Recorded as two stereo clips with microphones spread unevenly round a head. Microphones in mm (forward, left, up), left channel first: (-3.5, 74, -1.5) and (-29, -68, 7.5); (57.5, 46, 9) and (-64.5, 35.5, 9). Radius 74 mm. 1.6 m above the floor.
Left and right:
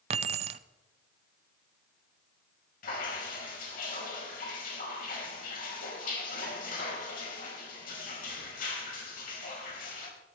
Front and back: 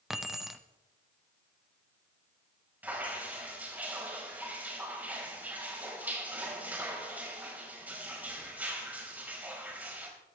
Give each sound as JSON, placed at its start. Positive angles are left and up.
{"t": 0.1, "sound": "keys jangling", "azimuth_deg": -90, "distance_m": 0.6}
{"t": 2.8, "sound": "dripping", "azimuth_deg": 110, "distance_m": 4.5}